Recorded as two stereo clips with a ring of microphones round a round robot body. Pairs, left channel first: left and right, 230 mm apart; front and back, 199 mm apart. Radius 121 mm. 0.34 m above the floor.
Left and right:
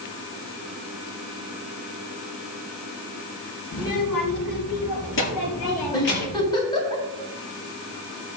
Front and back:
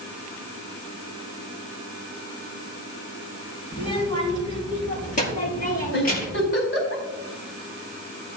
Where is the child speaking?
60° left, 5 m; by 6.5 s 45° left, 4.5 m.